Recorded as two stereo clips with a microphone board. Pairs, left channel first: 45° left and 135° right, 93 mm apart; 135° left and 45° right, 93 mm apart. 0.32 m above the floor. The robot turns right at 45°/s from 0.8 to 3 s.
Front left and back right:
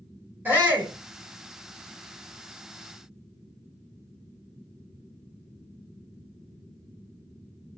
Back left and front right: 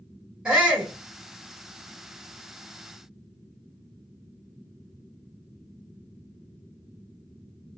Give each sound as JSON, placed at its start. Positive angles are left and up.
{"t": 0.5, "sound": "a shout", "azimuth_deg": -110, "distance_m": 1.3}